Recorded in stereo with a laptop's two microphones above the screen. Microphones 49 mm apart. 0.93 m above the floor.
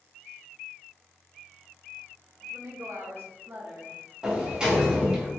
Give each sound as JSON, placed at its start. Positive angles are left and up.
{"t": 2.4, "sound": "a woman speaking", "side_deg": -75, "distance_m": 1.1}
{"t": 4.2, "sound": "a sliding door", "side_deg": -15, "distance_m": 0.9}